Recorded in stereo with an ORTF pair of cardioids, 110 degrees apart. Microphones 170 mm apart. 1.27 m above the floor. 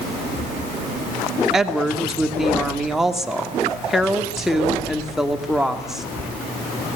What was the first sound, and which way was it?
A woman speaking, straight ahead.